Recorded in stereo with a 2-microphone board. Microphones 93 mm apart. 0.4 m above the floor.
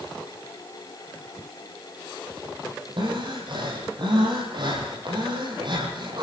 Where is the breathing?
55° right (ahead or behind), 8.5 m.